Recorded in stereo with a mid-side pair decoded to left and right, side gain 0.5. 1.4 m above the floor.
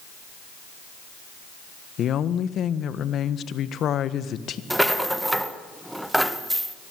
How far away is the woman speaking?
About 1.4 m.